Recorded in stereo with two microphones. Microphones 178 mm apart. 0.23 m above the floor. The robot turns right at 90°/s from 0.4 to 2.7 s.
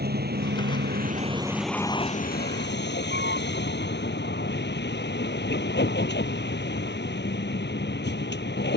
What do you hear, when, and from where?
0.0 s a vehicle: 115° right; by 8.8 s 95° left